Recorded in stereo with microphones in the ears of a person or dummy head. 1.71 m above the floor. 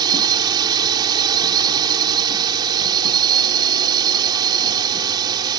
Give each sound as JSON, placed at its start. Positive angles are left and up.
{"t": 0.0, "sound": "a drone", "side_deg": -25}